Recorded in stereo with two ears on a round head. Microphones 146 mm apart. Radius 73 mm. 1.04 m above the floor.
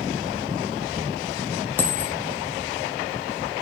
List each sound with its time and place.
1.8 s a dropped coin: 10° left (ahead or behind), 0.5 m